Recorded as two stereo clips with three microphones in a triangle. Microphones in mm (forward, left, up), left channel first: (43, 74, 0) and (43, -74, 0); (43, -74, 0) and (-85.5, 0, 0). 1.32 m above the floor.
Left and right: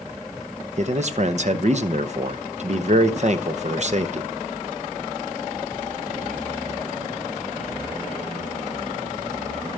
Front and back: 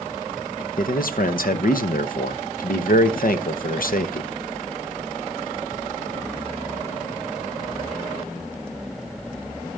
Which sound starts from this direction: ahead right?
A man speaking, at 0.8 s.